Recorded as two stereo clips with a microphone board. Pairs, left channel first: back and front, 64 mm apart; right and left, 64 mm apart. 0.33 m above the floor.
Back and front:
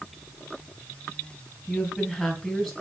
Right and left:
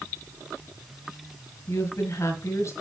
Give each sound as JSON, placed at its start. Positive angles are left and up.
{"t": 1.7, "sound": "a woman speaking", "azimuth_deg": -95, "distance_m": 2.0}